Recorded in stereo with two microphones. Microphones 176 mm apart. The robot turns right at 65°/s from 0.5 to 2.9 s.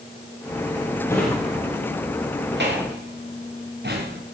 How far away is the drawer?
About 4.5 m.